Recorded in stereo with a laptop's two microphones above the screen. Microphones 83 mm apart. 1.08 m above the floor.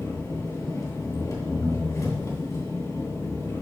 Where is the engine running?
40° left (ahead or behind), 2.5 m.